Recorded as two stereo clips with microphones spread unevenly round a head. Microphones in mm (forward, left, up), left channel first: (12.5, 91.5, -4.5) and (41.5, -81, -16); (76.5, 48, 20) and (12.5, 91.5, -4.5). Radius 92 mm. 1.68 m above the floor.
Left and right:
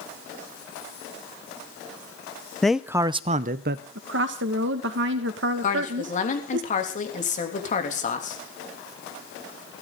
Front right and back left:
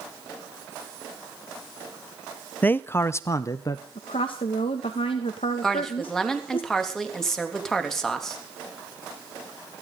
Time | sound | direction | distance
2.6 | a man speaking | 15° left | 0.8 m
4.0 | a woman speaking | 65° right | 2 m
5.6 | a woman speaking | 50° left | 3.5 m